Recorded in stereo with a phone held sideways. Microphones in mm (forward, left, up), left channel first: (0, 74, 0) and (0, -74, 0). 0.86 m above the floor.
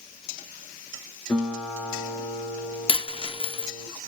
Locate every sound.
1.3 s a guitar: 10° left (ahead or behind), 4 m
2.9 s a dropped coin: 40° left (ahead or behind), 0.6 m